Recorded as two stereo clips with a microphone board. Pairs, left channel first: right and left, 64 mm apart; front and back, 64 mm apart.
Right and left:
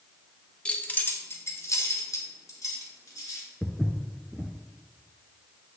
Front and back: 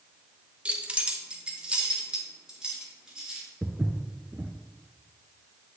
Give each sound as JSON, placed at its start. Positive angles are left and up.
{"t": 0.7, "sound": "keys jangling", "azimuth_deg": -140, "distance_m": 0.5}
{"t": 3.6, "sound": "footsteps", "azimuth_deg": 165, "distance_m": 0.6}